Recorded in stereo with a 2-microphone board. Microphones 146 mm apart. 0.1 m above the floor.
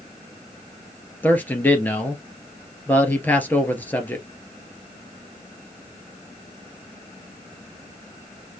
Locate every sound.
1.2 s a man speaking: 10° left (ahead or behind), 1.8 m